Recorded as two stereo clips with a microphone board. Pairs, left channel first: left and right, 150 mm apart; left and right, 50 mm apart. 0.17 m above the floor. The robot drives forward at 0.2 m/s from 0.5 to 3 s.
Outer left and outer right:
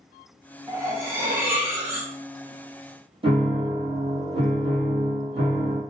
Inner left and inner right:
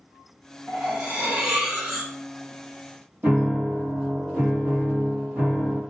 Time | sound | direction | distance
0.7 | cutlery clinking | 20° right (ahead or behind) | 0.8 m
3.2 | a piano | 40° right (ahead or behind) | 1.0 m